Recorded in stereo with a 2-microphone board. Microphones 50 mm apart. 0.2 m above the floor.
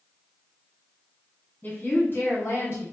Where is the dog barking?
I don't hear a dog barking.